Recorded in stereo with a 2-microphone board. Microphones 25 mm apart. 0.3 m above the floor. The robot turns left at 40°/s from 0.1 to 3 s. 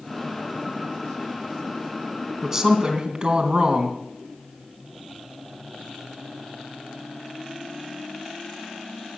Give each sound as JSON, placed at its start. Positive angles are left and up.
{"t": 2.4, "sound": "a woman speaking", "side_deg": -15, "distance_m": 2.5}